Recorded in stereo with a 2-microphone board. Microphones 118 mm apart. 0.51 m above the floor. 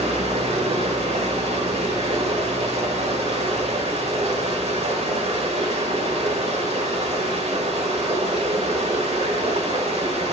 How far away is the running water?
About 1.7 m.